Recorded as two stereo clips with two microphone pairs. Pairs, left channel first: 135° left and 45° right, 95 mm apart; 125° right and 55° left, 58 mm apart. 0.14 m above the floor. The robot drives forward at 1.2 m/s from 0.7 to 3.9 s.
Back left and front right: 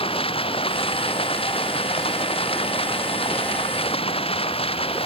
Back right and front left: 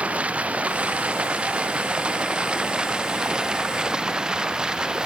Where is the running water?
125° left; by 5.0 s 135° left.